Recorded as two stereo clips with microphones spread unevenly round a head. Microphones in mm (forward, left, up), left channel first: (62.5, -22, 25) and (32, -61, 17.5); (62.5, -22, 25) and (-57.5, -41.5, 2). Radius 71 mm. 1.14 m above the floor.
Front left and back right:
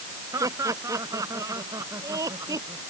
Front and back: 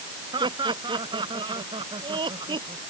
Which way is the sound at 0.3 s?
115° right.